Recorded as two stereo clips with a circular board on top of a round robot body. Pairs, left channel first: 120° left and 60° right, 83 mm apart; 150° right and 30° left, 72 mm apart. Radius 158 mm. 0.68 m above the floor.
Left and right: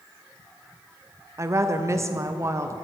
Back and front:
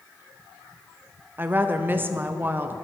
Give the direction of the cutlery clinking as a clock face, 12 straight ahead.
I don't hear cutlery clinking.